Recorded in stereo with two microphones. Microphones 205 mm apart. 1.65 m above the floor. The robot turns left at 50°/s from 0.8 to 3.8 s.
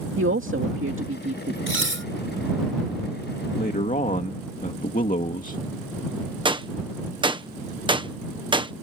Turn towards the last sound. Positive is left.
turn(degrees=-25)  # may be behind; listen again after turning